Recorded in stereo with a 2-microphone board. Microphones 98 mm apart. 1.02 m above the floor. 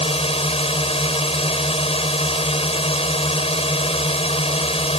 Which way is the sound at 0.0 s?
75° left (ahead or behind).